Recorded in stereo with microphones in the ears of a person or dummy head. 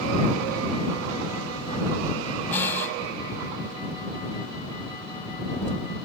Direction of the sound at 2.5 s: 10° left (ahead or behind).